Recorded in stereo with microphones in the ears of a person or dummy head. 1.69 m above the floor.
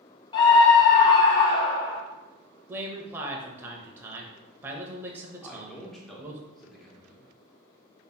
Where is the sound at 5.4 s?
Centre (ahead or behind), 0.7 m.